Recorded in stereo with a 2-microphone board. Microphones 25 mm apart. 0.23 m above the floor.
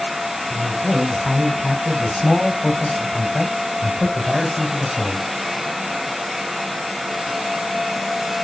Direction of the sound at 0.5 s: 25° left (ahead or behind).